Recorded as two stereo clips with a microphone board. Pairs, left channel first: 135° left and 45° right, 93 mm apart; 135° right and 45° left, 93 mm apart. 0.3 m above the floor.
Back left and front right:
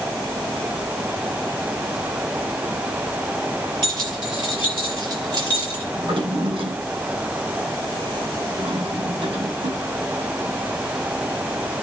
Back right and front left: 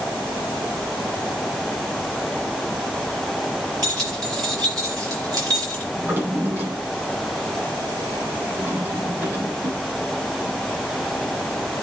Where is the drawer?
20° right, 6.5 m.